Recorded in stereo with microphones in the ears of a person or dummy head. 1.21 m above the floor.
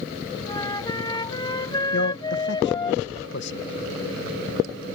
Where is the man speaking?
55° left (ahead or behind).